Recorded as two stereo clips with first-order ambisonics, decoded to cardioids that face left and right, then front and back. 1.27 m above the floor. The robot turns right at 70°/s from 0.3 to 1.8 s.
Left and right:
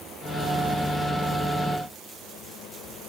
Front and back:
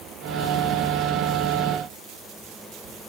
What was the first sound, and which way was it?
Only background noise.